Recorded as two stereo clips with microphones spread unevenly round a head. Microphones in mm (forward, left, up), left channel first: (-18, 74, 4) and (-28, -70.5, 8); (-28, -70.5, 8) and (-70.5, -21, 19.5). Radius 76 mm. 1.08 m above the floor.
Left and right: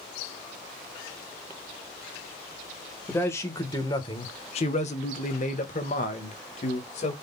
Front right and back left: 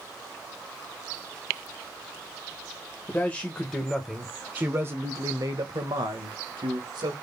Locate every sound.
3.1 s a man speaking: 10° left, 1.4 m; by 7.1 s 125° left, 1.7 m